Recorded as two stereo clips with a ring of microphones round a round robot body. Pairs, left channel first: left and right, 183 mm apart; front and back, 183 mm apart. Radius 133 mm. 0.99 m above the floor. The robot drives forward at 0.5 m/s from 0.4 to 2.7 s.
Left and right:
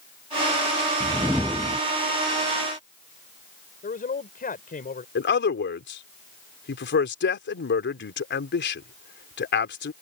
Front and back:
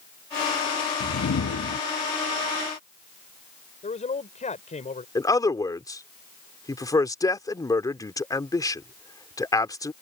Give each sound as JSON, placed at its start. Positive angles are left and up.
{"t": 1.0, "sound": "a whoosh", "azimuth_deg": 0}
{"t": 3.8, "sound": "a man speaking", "azimuth_deg": 50}
{"t": 5.2, "sound": "a man speaking", "azimuth_deg": 70}